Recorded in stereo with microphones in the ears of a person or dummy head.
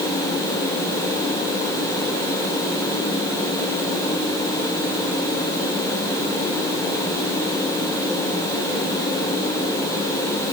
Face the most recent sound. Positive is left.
No sound to turn to.